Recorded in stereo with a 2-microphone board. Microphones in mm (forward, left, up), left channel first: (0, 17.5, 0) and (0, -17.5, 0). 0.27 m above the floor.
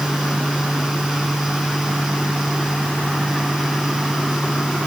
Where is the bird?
I don't hear a bird.